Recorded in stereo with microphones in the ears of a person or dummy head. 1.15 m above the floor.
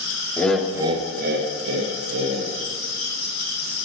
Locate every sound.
0.4 s laughter: 10° left (ahead or behind), 0.6 m; by 2.5 s 85° right, 1.4 m